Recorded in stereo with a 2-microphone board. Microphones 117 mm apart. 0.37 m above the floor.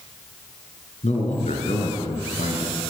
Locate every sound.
1.0 s a man speaking: 75° left (ahead or behind), 6 m